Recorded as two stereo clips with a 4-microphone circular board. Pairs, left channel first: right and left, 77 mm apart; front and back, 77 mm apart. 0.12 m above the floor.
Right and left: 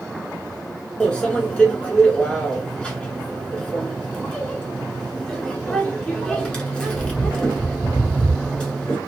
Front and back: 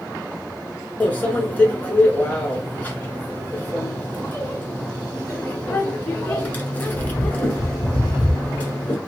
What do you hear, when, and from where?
1.0 s a microwave: 35° right, 1.1 m